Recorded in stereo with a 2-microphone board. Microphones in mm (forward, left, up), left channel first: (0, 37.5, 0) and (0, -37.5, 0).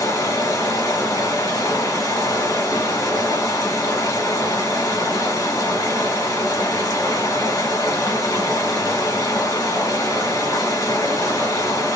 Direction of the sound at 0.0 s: 65° left (ahead or behind).